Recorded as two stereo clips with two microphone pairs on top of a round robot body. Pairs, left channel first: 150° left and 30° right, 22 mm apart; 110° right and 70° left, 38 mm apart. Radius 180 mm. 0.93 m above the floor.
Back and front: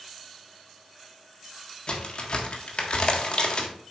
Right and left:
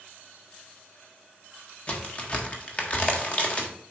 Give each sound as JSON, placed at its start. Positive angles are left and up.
{"t": 1.9, "sound": "a crack", "azimuth_deg": -165, "distance_m": 1.9}